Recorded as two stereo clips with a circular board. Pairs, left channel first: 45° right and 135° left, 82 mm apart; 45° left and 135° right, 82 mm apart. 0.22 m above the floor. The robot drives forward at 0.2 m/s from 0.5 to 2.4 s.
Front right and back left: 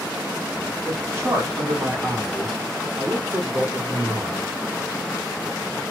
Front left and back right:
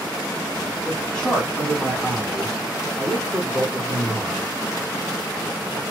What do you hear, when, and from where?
0.8 s a man speaking: 115° left, 1.2 m; by 4.5 s 130° left, 1.3 m